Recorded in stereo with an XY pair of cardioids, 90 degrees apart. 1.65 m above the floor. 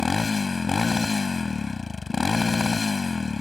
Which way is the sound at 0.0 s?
35° left.